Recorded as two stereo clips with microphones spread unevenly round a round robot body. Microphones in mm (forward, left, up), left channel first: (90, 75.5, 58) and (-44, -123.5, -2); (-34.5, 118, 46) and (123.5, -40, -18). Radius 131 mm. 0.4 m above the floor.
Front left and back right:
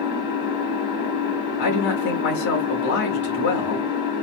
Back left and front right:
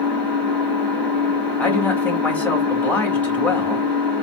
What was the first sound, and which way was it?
An engine running, 45° left.